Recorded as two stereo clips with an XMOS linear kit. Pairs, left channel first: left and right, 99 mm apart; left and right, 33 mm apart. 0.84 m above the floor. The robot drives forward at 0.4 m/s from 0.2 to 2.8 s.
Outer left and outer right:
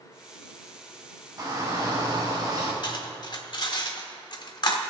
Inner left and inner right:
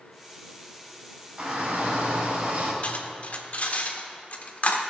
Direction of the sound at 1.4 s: 40° right (ahead or behind).